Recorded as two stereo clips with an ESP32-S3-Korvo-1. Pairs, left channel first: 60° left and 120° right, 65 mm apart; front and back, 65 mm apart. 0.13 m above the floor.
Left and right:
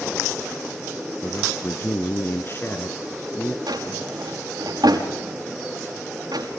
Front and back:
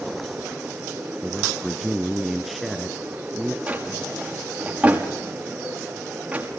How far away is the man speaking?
About 1.7 m.